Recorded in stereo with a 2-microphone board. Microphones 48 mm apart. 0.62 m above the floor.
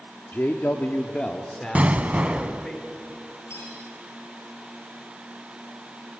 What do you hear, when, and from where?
0.3 s a man speaking: 40° left (ahead or behind), 1.2 m; by 2.8 s 5° left (ahead or behind), 3.5 m
1.8 s an explosion: 30° right (ahead or behind), 0.9 m
3.5 s cutlery clinking: 70° left (ahead or behind), 8.5 m